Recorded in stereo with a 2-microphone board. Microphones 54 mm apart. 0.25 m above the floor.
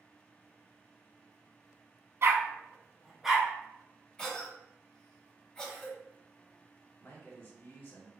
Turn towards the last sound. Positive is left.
turn(degrees=40)  # may be behind; listen again after turning